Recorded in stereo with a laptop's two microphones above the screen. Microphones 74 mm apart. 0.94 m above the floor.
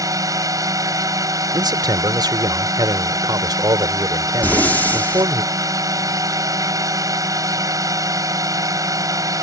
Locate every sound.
0.0 s a drone: 50° right (ahead or behind)
1.5 s a man speaking: 70° right (ahead or behind)
4.4 s breathing: 25° left (ahead or behind)